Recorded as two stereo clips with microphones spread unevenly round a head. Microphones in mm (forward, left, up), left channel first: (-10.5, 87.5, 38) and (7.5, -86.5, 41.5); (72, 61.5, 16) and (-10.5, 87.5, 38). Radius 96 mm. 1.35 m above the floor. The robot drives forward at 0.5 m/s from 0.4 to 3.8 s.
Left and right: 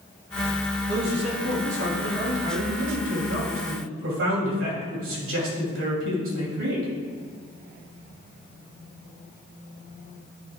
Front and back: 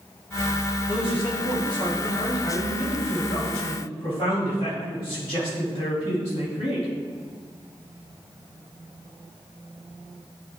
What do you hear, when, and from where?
0.9 s a man speaking: 60° right, 3 m; by 6.9 s 90° right, 2.5 m